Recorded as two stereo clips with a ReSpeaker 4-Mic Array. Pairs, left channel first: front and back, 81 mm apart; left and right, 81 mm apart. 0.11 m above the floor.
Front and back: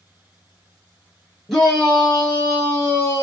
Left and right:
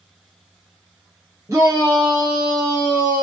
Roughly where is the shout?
Right.